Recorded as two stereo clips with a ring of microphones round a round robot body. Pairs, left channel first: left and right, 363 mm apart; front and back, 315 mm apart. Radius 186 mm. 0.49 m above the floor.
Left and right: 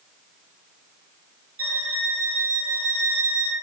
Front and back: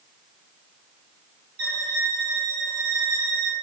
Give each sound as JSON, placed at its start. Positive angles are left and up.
{"t": 1.6, "sound": "a violin", "azimuth_deg": -150, "distance_m": 1.4}